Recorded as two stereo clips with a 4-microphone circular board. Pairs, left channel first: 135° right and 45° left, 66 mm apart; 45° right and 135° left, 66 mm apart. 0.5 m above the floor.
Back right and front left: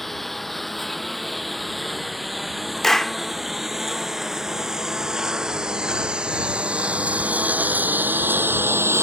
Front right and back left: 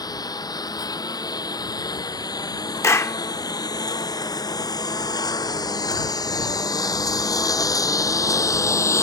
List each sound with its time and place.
0.0 s a lawn mower: 50° right; by 9.0 s 5° right
2.8 s a clap: 55° right